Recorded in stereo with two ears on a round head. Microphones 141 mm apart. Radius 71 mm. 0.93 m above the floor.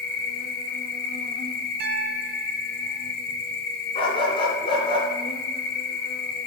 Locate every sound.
0.0 s an insect: 65° left (ahead or behind), 1.0 m
1.8 s a piano: 65° right (ahead or behind), 0.7 m
4.0 s a dog barking: 35° left (ahead or behind), 3 m